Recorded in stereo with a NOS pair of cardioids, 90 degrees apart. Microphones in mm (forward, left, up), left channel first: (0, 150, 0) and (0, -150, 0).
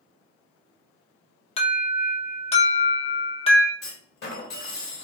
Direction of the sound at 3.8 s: 45° left.